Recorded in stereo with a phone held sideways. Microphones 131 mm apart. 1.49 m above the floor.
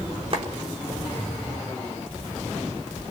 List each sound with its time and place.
0.3 s a clap: 45° right (ahead or behind), 4 m